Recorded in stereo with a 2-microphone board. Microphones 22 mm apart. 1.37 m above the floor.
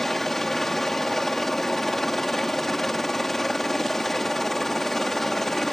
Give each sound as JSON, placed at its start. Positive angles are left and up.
{"t": 0.0, "sound": "a helicopter", "side_deg": 15}